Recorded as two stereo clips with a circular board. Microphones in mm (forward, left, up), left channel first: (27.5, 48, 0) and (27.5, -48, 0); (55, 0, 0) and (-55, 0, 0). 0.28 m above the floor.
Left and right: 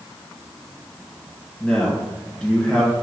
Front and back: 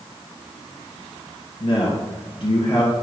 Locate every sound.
1.6 s a man speaking: 10° left, 1.8 m